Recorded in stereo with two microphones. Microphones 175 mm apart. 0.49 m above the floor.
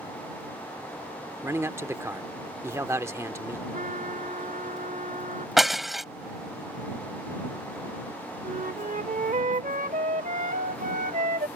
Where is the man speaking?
15° right (ahead or behind).